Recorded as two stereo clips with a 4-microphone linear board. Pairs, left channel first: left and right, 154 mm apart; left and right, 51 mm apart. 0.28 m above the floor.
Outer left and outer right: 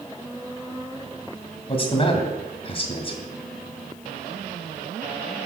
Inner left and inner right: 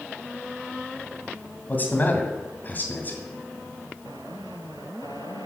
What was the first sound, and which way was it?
A man speaking, 35° left (ahead or behind).